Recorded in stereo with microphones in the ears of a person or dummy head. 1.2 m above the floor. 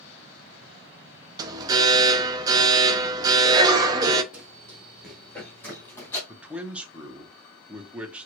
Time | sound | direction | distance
1.4 | an alarm | 20° right (ahead or behind) | 0.6 m
4.3 | running footsteps | 10° right (ahead or behind) | 1.3 m
6.3 | a man speaking | 5° right (ahead or behind) | 0.8 m